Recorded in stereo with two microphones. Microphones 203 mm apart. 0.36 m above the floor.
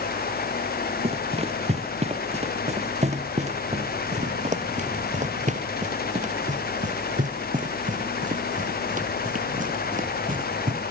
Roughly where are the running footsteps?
Right.